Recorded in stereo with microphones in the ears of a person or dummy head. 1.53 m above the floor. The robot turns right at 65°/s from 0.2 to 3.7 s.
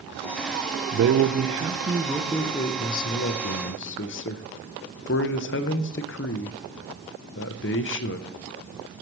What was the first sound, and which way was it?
A man speaking, 75° right.